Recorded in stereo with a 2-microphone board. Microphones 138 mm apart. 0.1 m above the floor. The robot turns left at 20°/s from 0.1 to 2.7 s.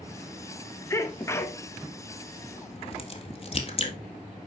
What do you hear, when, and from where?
0.9 s a sneeze: 20° left (ahead or behind), 1.1 m; by 1.6 s 15° left (ahead or behind), 1.1 m
2.7 s a crack: 45° left (ahead or behind), 1.6 m